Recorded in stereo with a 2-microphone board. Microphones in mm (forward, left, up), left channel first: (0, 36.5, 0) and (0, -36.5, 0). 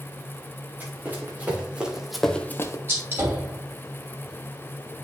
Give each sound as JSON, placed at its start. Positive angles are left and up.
{"t": 0.8, "sound": "running footsteps", "side_deg": -25, "distance_m": 2.5}
{"t": 2.9, "sound": "a gunshot", "side_deg": -35, "distance_m": 2.5}